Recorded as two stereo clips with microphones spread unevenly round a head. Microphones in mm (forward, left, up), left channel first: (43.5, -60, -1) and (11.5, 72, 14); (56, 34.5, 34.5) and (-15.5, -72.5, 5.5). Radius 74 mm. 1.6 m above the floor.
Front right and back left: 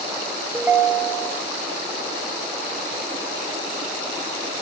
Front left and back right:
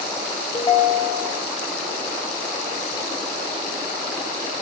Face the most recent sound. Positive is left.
turn(degrees=45)